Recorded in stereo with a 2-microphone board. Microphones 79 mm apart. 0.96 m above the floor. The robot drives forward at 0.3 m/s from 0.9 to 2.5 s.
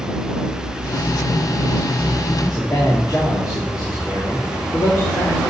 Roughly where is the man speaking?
Left.